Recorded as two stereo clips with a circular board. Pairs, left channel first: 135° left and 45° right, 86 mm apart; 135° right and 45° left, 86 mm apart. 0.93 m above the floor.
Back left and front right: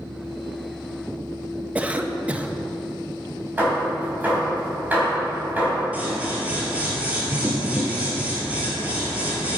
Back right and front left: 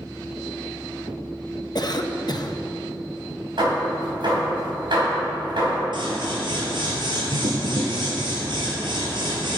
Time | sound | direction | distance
1.8 | a cough | 115° right | 0.8 m
3.6 | hammering | 25° left | 4 m
5.9 | scissors | 25° left | 3 m